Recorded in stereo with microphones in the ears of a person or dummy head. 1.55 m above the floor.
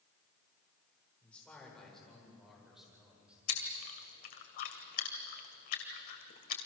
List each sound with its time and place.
1.2 s a man speaking: 10° left (ahead or behind), 7 m; by 3.4 s 5° right (ahead or behind), 8.5 m
3.5 s chewing: 50° left (ahead or behind), 2.5 m